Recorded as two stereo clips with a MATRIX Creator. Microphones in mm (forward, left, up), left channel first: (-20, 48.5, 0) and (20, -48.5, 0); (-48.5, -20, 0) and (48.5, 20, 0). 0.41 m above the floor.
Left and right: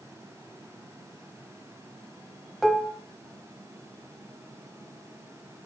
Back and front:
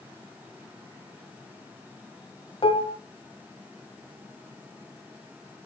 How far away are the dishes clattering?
About 1.2 m.